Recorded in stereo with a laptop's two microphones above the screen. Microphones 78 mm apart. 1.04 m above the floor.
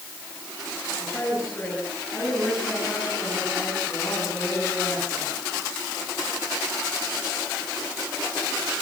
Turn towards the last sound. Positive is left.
turn(degrees=35)  # may be behind; listen again after turning